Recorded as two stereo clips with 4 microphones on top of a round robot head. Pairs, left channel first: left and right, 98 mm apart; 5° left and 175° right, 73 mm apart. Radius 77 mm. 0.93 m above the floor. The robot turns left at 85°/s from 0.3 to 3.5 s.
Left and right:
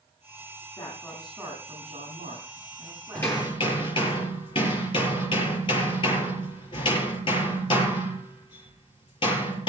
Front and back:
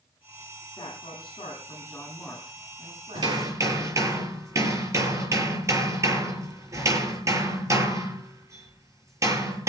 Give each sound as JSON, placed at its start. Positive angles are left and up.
{"t": 0.8, "sound": "a man speaking", "azimuth_deg": 40, "distance_m": 8.5}
{"t": 3.1, "sound": "hammering", "azimuth_deg": 170, "distance_m": 6.5}